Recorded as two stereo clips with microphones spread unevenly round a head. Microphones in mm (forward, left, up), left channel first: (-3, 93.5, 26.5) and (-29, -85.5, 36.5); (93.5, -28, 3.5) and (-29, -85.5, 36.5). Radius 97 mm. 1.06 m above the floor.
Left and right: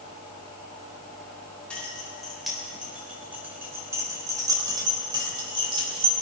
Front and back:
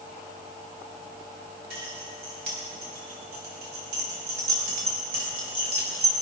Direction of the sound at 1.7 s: 165° left.